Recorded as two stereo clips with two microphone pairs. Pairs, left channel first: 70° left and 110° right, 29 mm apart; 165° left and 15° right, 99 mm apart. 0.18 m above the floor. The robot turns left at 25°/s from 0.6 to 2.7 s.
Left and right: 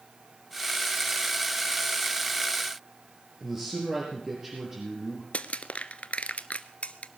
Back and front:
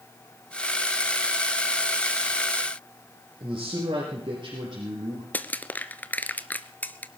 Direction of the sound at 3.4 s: 50° right.